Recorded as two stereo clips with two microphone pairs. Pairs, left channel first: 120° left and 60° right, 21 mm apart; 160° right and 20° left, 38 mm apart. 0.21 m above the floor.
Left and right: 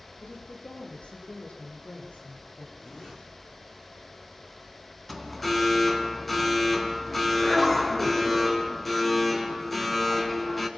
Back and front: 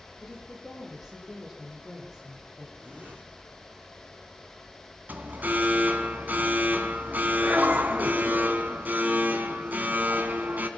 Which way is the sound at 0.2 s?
105° left.